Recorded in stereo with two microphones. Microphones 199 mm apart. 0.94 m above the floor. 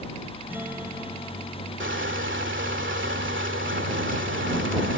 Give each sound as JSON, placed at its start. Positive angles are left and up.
{"t": 0.5, "sound": "a guitar", "side_deg": -10}
{"t": 1.8, "sound": "crushing", "side_deg": -75}